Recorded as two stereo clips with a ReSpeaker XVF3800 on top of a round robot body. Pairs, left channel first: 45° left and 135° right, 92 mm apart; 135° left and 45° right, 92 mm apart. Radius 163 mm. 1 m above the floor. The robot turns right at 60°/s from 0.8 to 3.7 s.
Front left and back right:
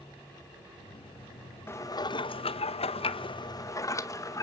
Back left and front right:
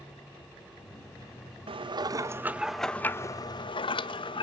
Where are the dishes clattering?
20° right, 0.8 m; by 4.4 s 100° left, 0.8 m.